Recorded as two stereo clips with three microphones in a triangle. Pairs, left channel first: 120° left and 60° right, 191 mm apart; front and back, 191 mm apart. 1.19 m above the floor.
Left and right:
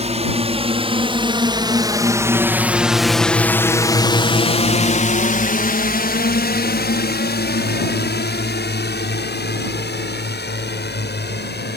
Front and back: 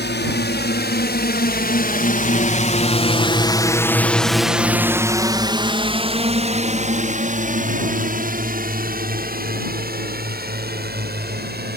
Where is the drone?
10° right; by 11.8 s 150° left.